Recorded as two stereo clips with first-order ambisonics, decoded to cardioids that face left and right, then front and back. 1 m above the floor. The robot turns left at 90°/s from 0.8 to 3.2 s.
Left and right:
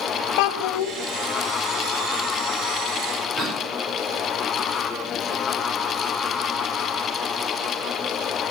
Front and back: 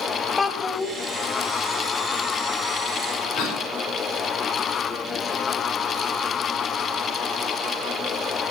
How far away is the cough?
About 5 m.